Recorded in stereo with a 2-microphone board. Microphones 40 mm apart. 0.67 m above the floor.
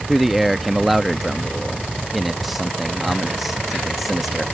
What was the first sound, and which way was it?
A man speaking, 5° right (ahead or behind).